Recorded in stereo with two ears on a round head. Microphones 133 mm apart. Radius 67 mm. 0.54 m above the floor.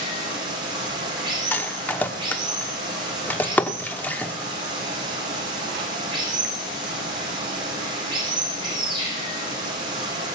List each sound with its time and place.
0.0 s running water: 30° right (ahead or behind), 8 m
1.5 s a rattle: 10° left (ahead or behind), 1.0 m